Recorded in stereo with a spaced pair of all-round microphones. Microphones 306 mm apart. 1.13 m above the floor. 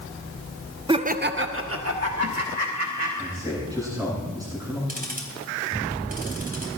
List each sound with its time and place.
0.9 s laughter: 15° right (ahead or behind), 0.6 m; by 3.1 s 60° right (ahead or behind), 2.5 m
3.2 s a man speaking: 10° right (ahead or behind), 10 m
4.9 s ticking: 30° right (ahead or behind), 3.5 m